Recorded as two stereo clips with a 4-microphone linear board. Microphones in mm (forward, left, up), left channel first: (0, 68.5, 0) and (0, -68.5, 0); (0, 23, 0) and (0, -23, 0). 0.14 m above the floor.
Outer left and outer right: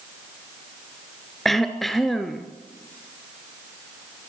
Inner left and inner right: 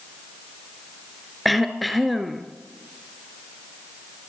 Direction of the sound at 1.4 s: Centre (ahead or behind).